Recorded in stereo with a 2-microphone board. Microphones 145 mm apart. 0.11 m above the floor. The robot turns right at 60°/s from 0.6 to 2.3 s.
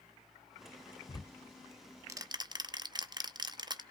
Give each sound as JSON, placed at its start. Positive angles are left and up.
{"t": 1.1, "sound": "ticking", "side_deg": 35, "distance_m": 0.6}